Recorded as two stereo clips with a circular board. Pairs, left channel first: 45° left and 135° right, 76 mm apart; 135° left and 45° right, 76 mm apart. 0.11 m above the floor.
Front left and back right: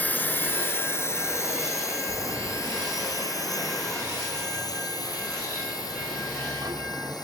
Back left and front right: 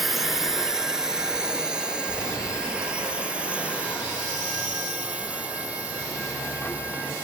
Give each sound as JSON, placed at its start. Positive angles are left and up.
{"t": 0.0, "sound": "a drone", "azimuth_deg": 40}
{"t": 2.1, "sound": "a sliding door", "azimuth_deg": -160}